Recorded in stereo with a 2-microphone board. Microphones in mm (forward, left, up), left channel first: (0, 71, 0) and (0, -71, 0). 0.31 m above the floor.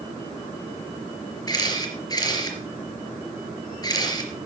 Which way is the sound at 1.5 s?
30° left (ahead or behind).